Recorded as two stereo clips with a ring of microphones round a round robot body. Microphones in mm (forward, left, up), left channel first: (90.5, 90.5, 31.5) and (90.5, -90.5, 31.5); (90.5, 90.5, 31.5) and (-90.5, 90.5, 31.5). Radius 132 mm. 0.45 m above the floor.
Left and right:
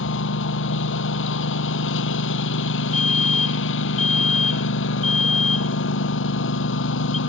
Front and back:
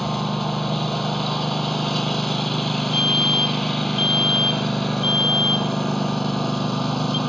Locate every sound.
0.0 s a lawn mower: 90° left
2.9 s a fire alarm: 50° left